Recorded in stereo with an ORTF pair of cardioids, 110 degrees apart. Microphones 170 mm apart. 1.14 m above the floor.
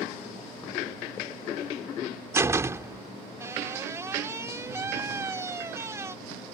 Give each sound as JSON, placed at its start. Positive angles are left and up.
{"t": 2.3, "sound": "a door slam", "azimuth_deg": -15}